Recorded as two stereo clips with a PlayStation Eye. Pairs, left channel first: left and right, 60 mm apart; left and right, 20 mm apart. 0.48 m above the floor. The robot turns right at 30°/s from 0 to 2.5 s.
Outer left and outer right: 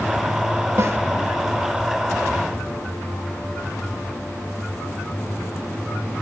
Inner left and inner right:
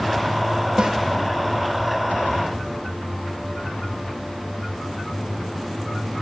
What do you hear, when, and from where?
0.8 s a snare drum: 50° right (ahead or behind), 1.5 m; by 1.0 s 45° right (ahead or behind), 1.5 m